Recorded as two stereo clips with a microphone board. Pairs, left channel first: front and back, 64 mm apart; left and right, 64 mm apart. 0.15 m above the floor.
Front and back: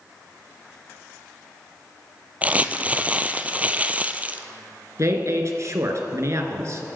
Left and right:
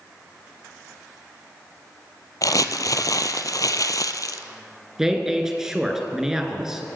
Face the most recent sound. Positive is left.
turn(degrees=-170)